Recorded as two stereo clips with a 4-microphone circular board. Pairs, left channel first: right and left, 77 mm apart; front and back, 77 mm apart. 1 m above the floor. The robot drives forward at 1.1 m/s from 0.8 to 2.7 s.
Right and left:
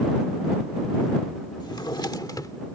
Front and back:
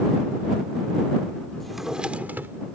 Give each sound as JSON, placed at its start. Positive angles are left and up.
{"t": 1.6, "sound": "a drawer", "azimuth_deg": -85}